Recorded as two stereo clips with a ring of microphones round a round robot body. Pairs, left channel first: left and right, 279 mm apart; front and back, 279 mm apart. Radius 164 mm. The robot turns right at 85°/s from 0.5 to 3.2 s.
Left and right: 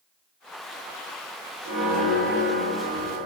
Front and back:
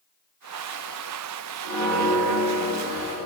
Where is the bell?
155° left, 1.8 m; by 3.3 s 75° right, 1.8 m.